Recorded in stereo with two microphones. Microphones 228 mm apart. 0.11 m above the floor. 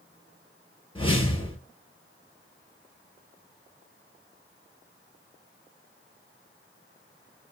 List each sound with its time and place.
0.9 s a whoosh: 25° left (ahead or behind), 0.9 m